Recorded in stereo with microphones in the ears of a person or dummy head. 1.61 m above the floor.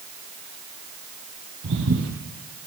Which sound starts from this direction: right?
Footsteps, at 1.6 s.